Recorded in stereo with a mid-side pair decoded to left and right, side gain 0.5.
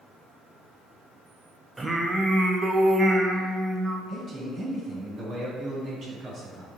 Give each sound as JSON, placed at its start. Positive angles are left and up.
{"t": 1.8, "sound": "singing", "azimuth_deg": -15, "distance_m": 0.7}
{"t": 4.1, "sound": "a man speaking", "azimuth_deg": -50, "distance_m": 1.8}